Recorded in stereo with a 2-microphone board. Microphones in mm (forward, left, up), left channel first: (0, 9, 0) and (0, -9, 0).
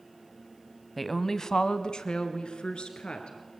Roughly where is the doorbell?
No doorbell in this recording.